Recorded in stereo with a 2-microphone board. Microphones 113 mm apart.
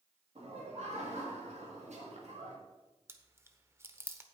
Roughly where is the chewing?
Right.